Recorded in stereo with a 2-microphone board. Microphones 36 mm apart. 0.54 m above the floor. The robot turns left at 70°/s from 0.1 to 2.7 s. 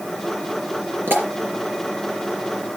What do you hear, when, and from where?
1.1 s a pop: 80° right, 3.5 m; by 1.3 s 85° right, 3.5 m